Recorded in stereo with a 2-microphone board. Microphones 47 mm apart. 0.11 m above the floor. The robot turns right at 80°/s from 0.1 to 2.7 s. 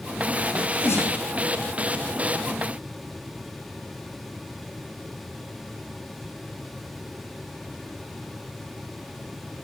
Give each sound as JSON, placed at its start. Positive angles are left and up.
{"t": 0.5, "sound": "a sneeze", "side_deg": 35, "distance_m": 4.5}